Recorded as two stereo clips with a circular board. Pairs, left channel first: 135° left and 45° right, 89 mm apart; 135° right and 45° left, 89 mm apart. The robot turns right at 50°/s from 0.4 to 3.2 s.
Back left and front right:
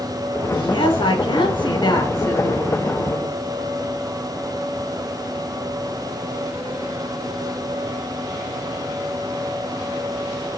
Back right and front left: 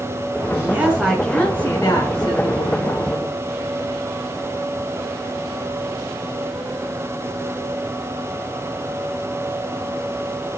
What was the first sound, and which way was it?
A woman speaking, 105° left.